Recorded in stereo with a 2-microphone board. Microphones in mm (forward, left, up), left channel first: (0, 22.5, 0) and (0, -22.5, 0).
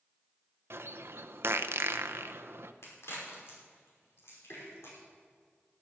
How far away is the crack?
About 5.5 m.